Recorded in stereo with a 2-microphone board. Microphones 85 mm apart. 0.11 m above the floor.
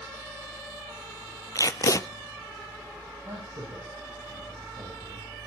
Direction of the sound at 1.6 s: 40° left (ahead or behind).